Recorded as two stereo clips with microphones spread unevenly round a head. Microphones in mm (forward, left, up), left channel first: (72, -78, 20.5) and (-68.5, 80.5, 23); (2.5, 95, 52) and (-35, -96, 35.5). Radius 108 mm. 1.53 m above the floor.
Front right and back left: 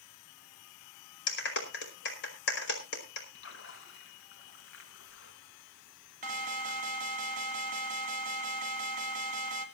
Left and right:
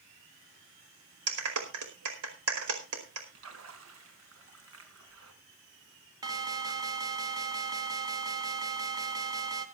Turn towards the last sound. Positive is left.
turn(degrees=-175)